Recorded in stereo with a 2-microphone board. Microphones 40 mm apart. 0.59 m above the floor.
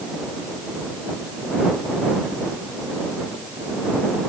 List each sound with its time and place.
Only background noise.